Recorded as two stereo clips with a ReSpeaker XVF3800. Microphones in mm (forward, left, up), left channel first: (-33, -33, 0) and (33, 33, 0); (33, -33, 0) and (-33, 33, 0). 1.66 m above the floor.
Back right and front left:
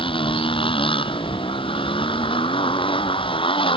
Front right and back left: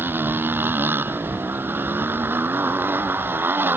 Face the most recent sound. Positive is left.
turn(degrees=-155)